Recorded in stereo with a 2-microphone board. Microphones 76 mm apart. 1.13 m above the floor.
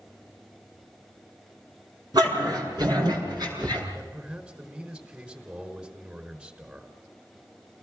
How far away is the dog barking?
About 6.5 m.